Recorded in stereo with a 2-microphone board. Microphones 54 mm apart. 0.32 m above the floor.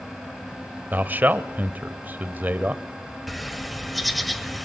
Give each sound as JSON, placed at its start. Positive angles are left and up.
{"t": 0.9, "sound": "a man speaking", "side_deg": -35, "distance_m": 1.1}
{"t": 3.3, "sound": "a bird", "side_deg": 0, "distance_m": 1.2}